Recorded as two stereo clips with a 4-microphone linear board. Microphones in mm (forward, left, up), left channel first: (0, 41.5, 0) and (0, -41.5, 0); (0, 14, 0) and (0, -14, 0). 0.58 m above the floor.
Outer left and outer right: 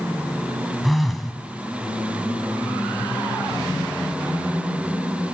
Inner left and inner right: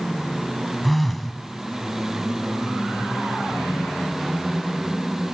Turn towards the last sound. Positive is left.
turn(degrees=0)  # may be behind; listen again after turning